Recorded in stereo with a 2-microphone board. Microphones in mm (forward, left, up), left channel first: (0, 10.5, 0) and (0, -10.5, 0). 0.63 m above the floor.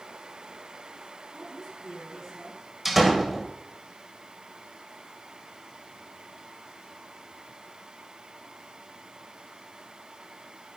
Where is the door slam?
10° right (ahead or behind), 2.0 m.